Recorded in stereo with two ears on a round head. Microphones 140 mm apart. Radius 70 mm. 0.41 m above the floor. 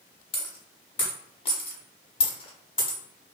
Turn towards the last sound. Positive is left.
turn(degrees=35)  # may be behind; listen again after turning